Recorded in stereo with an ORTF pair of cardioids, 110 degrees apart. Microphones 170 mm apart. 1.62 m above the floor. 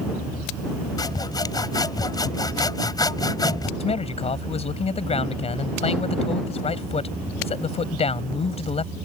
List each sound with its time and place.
1.0 s sawing: 20° left
3.8 s a man speaking: 35° left